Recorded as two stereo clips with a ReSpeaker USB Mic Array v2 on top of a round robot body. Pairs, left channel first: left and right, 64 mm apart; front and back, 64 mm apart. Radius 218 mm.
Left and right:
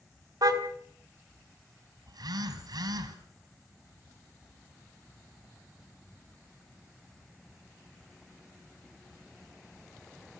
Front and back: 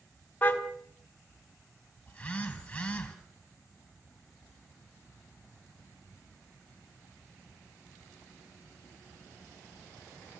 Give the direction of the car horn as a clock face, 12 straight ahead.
2 o'clock.